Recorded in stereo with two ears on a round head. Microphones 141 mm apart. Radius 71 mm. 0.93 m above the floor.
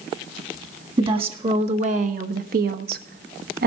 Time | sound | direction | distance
1.0 | a woman speaking | 35° right (ahead or behind) | 1.6 m